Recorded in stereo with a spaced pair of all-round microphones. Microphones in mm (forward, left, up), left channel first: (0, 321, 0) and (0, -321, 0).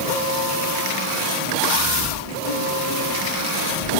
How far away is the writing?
About 0.7 m.